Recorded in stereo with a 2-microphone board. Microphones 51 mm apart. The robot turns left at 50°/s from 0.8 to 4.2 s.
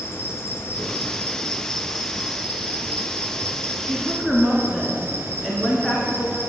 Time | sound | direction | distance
0.0 | an insect | 55° left | 0.9 m
3.8 | a woman speaking | 10° right (ahead or behind) | 1.9 m